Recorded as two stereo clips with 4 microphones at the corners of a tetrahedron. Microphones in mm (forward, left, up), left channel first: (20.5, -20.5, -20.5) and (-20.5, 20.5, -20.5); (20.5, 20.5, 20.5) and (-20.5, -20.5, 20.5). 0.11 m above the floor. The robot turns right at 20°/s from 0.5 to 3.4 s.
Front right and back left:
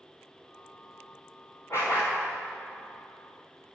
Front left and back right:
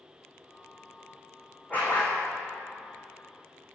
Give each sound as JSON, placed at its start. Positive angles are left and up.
{"t": 1.7, "sound": "a dog barking", "azimuth_deg": -15, "distance_m": 3.5}